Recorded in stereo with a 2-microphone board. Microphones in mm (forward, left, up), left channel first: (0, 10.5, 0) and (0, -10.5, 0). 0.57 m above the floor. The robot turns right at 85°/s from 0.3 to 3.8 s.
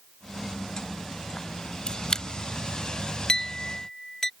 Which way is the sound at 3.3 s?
40° left (ahead or behind).